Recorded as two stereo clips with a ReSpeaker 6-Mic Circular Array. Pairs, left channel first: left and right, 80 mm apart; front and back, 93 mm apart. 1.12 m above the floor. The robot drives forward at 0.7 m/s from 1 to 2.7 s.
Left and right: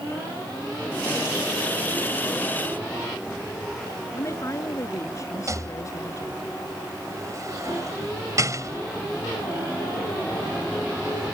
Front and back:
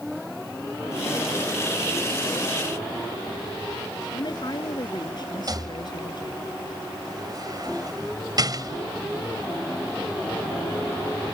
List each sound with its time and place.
4.1 s a woman speaking: 40° left
5.5 s a rattle: 135° right